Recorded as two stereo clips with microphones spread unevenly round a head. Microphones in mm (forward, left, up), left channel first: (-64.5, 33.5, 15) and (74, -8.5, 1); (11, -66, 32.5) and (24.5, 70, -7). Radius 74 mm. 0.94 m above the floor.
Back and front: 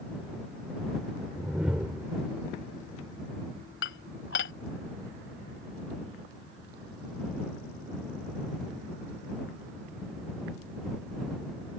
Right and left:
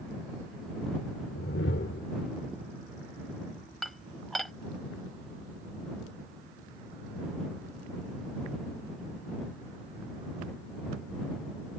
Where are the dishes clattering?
Straight behind.